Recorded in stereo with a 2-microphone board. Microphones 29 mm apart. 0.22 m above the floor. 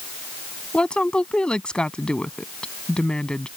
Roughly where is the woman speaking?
Left.